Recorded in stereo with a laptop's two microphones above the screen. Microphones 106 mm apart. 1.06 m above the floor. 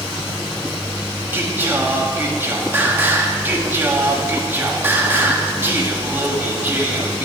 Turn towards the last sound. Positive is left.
turn(degrees=-20)  # may be behind; listen again after turning